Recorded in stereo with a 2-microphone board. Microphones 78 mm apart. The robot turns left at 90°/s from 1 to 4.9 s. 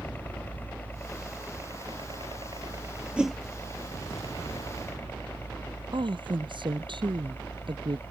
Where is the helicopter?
25° left (ahead or behind); by 8.1 s 30° left (ahead or behind).